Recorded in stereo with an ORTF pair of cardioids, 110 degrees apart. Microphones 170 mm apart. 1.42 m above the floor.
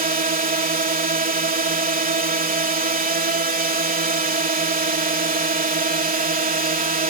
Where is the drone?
65° right.